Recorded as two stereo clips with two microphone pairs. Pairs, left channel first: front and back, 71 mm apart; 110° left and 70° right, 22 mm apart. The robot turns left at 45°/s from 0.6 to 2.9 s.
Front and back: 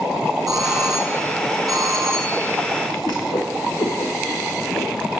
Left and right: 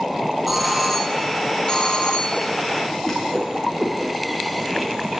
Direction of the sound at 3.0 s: 20° left.